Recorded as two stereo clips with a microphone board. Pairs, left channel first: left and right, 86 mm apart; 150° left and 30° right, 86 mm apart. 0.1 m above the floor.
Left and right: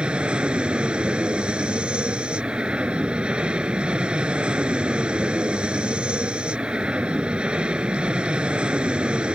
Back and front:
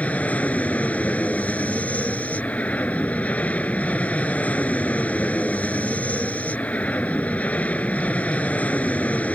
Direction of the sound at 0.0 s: 155° right.